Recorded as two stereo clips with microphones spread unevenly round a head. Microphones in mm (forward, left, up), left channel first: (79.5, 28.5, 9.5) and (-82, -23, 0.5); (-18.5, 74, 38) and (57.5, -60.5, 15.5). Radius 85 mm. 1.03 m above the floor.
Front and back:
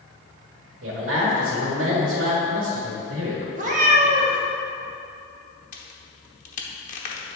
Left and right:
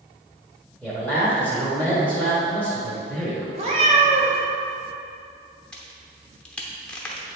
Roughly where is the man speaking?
Behind right.